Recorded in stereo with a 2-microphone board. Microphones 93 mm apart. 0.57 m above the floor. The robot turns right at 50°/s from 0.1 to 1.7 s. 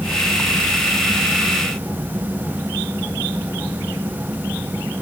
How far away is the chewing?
No chewing in this recording.